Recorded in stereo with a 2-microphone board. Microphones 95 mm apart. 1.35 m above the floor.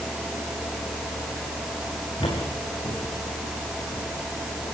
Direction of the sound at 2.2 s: 60° left (ahead or behind).